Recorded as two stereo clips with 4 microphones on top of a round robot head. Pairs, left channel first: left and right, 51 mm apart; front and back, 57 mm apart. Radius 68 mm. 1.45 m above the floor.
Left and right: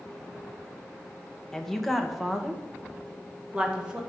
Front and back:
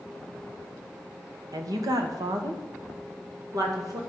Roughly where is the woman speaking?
Behind.